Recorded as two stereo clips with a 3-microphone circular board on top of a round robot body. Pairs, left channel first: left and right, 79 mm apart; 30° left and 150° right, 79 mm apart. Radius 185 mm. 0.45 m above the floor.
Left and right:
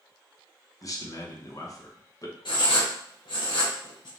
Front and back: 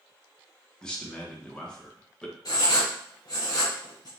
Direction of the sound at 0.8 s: 105° left.